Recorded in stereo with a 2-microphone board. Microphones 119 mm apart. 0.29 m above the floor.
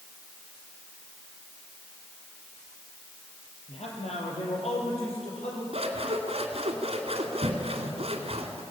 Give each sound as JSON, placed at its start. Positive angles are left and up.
{"t": 3.7, "sound": "a man speaking", "side_deg": 70, "distance_m": 6.0}
{"t": 5.7, "sound": "scissors", "side_deg": -65, "distance_m": 2.5}